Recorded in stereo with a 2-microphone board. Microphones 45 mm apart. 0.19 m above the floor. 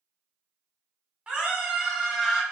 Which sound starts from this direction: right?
A scream, at 1.3 s.